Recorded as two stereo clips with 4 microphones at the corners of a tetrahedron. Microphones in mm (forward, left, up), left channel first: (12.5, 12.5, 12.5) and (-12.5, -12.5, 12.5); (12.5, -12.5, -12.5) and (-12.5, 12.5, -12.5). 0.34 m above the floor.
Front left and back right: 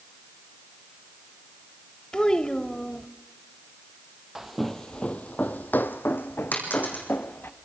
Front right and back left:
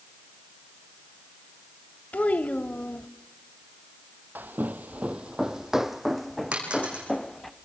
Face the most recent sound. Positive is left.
turn(degrees=75)